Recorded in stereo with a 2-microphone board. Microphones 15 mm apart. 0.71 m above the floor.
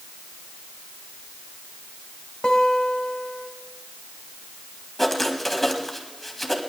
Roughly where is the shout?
No shout in this recording.